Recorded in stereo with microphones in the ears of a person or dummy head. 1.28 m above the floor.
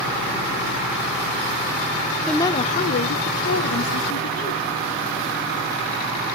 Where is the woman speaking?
5° left (ahead or behind), 0.6 m; by 4.7 s 80° left, 2 m.